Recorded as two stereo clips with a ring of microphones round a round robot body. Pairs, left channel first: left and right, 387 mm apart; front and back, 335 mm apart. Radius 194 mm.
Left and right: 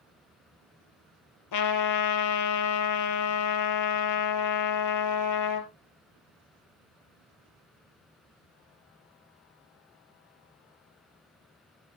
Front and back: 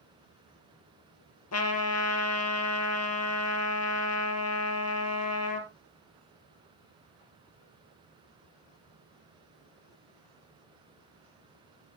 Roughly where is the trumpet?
Ahead left.